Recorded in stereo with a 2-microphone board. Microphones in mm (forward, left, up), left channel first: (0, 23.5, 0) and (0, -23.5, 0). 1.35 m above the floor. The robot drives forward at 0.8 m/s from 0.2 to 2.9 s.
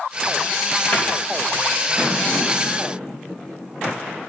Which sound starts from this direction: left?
A cupboard door, at 0.9 s.